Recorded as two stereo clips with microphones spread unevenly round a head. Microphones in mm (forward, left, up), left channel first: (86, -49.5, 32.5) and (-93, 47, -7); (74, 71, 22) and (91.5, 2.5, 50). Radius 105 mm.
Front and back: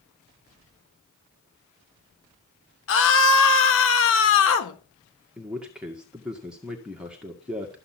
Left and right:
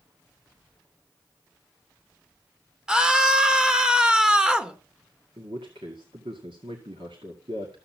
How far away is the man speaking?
About 1.9 m.